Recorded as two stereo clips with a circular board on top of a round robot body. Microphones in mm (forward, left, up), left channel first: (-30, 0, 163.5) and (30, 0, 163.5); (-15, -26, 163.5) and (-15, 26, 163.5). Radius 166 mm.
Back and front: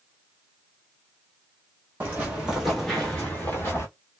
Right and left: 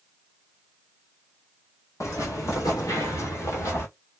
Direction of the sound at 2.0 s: 65° right.